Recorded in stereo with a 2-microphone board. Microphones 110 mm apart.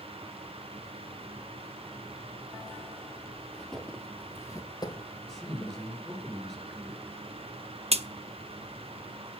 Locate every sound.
3.5 s footsteps: centre (ahead or behind), 2.0 m; by 5.9 s 40° left (ahead or behind), 2.5 m
5.3 s a man speaking: 5° left (ahead or behind), 4.5 m
7.9 s a crack: 65° right (ahead or behind), 0.7 m